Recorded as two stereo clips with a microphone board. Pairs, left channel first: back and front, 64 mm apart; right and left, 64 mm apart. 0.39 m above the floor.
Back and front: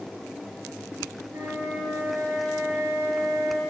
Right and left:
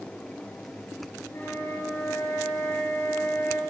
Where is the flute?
45° right, 6 m.